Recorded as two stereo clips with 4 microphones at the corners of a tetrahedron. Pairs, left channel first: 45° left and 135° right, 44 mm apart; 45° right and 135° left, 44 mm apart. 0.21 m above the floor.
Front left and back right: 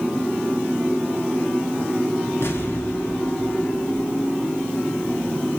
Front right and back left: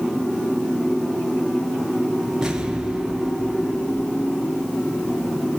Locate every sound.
2.4 s an explosion: 60° left, 2.5 m